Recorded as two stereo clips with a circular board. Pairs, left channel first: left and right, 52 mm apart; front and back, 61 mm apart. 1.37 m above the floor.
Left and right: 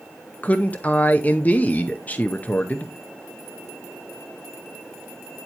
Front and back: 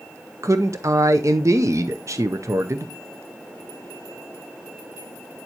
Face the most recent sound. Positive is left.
turn(degrees=145)